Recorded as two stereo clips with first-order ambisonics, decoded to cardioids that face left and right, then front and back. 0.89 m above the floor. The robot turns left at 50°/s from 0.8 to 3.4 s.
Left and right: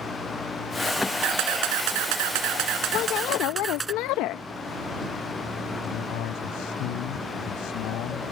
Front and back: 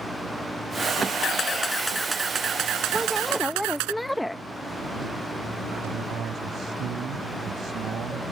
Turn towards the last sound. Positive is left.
turn(degrees=120)